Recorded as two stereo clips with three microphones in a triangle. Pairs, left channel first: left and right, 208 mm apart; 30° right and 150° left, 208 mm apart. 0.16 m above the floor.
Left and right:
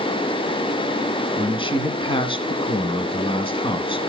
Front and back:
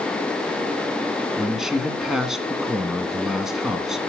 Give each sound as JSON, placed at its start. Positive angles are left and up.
{"t": 1.4, "sound": "a man speaking", "azimuth_deg": 65, "distance_m": 1.5}